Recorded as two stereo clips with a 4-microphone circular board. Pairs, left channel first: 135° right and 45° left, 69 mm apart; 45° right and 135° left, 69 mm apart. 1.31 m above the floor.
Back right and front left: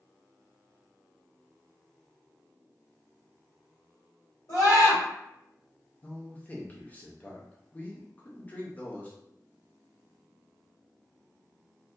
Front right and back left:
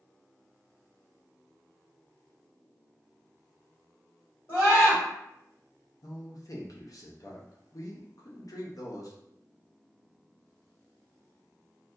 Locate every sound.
4.5 s a scream: 100° right, 1.7 m
6.0 s a man speaking: 70° right, 0.5 m